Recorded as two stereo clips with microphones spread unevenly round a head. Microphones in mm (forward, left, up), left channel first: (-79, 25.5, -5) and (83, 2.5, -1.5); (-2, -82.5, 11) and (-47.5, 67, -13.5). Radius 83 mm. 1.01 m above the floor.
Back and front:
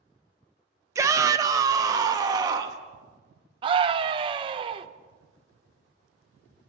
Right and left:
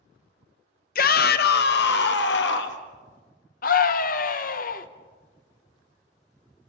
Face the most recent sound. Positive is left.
turn(degrees=-60)